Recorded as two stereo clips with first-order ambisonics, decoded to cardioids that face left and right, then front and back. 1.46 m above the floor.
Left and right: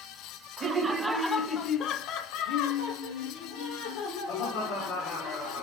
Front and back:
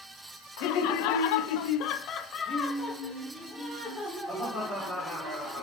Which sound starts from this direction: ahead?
Laughter, at 0.6 s.